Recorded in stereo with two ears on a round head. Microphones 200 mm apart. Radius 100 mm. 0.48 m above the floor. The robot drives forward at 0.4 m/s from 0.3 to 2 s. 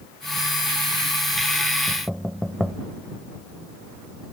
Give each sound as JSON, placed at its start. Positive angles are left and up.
{"t": 1.9, "sound": "knocking", "side_deg": -5}